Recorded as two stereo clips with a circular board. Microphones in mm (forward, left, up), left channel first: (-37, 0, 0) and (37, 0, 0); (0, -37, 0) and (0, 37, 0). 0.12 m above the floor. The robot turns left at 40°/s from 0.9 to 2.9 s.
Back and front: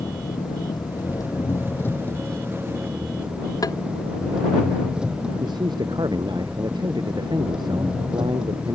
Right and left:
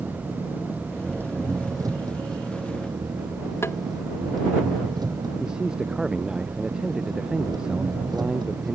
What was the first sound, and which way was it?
An engine running, 155° left.